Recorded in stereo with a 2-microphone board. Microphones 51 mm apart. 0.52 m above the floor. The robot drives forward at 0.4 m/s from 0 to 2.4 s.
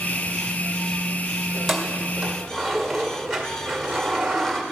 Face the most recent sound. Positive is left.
turn(degrees=-5)  # may be behind; listen again after turning